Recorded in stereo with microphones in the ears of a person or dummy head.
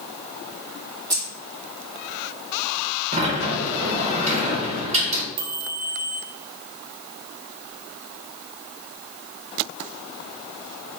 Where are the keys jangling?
20° right (ahead or behind), 1.2 m.